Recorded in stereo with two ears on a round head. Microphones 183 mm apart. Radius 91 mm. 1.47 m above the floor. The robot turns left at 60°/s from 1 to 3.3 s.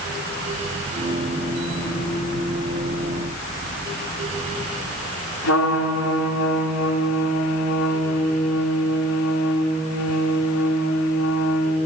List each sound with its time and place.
5.4 s a trumpet: 90° left, 5 m